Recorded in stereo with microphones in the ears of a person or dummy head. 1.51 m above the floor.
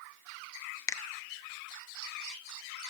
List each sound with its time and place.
0.9 s a finger snap: 20° left (ahead or behind), 0.5 m